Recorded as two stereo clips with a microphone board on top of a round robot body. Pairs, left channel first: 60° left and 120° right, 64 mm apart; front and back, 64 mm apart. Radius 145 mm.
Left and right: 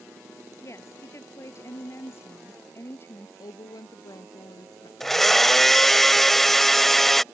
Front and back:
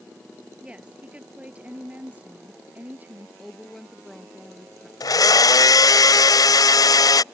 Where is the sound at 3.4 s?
85° left.